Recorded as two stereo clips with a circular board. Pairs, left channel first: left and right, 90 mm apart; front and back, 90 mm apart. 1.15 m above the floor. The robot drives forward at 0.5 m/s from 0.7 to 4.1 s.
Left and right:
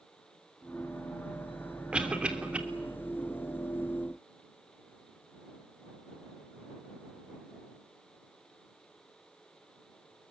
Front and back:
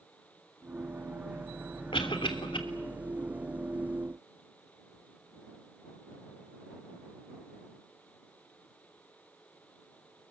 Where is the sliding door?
I don't hear a sliding door.